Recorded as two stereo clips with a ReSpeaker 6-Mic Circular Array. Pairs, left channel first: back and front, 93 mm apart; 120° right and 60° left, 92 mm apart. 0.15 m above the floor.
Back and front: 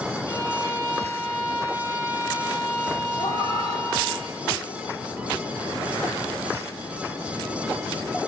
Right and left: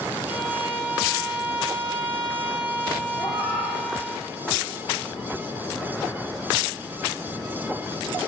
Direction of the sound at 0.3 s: 120° right.